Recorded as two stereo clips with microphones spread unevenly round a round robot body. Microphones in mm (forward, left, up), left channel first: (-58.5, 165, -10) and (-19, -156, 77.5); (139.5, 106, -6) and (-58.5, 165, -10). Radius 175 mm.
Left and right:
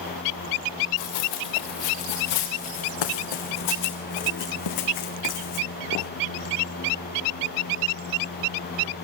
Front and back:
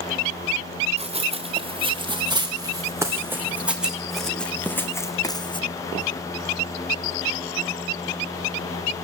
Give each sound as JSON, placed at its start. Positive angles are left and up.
{"t": 1.0, "sound": "running footsteps", "azimuth_deg": 100, "distance_m": 3.5}